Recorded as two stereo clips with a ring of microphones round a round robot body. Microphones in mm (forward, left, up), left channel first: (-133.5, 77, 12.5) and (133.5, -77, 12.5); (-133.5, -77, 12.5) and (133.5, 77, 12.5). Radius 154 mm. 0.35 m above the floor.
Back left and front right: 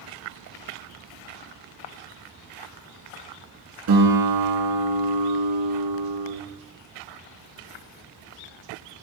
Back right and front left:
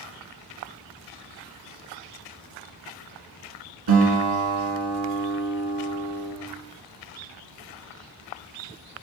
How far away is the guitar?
About 2 m.